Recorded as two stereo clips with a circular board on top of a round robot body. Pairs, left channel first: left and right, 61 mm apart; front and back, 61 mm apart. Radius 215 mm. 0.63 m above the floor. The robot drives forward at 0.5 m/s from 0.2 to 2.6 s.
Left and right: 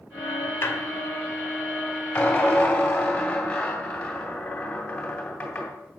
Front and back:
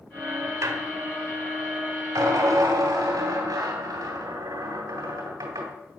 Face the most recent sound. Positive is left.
turn(degrees=160)